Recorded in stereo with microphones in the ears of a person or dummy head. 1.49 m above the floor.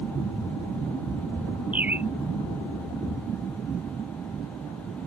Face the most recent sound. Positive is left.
turn(degrees=-10)  # may be behind; listen again after turning